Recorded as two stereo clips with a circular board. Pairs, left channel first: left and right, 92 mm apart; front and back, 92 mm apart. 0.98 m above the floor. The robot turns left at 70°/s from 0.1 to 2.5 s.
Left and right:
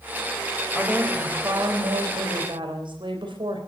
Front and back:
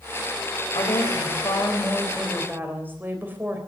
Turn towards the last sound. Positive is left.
turn(degrees=-115)